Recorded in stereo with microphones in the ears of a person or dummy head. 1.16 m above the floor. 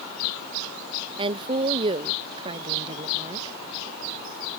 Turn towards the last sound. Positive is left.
turn(degrees=-30)  # may be behind; listen again after turning